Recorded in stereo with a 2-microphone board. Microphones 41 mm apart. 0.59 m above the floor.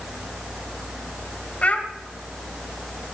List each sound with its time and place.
1.6 s a child speaking: 35° left (ahead or behind), 1.9 m